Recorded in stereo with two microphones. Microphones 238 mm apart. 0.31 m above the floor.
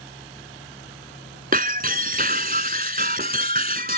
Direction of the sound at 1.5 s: 40° right (ahead or behind).